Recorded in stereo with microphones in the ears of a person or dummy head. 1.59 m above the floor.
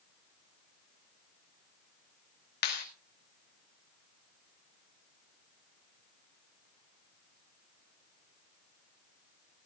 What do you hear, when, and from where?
2.6 s a clap: 50° left (ahead or behind), 2.5 m